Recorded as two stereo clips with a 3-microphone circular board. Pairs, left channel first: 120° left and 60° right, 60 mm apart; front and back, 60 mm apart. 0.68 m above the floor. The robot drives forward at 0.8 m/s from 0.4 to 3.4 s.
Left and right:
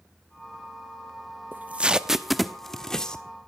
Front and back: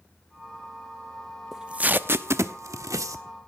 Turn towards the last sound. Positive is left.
turn(degrees=-165)